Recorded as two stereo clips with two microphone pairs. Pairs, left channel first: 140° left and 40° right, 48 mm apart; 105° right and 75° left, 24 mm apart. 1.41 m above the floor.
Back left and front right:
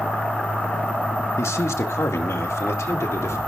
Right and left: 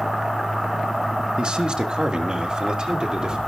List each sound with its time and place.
1.4 s a man speaking: 120° left, 1.3 m; by 3.4 s 130° left, 2.5 m